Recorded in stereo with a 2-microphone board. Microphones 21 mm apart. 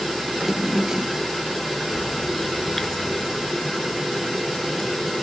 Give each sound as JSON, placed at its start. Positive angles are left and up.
{"t": 0.3, "sound": "a drawer", "side_deg": -20}
{"t": 1.9, "sound": "a bird", "side_deg": 25}